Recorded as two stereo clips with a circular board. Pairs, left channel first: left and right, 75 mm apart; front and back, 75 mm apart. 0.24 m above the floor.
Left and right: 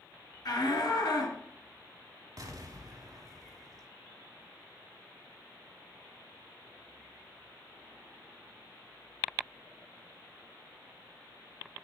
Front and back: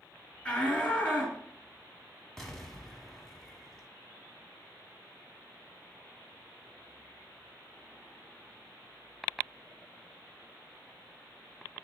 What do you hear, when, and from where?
0.5 s a shout: 70° left, 2.5 m
2.4 s an explosion: 85° right, 0.9 m